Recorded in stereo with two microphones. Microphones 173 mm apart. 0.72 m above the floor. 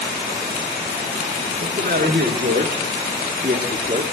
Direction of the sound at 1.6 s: 60° right (ahead or behind).